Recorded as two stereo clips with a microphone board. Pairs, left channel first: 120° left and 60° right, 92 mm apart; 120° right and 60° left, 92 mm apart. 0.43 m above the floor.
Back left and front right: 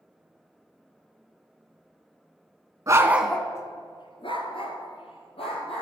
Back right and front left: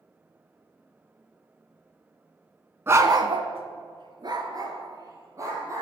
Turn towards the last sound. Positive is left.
turn(degrees=115)